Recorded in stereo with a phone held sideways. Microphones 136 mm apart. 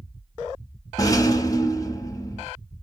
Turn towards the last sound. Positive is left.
turn(degrees=25)  # may be behind; listen again after turning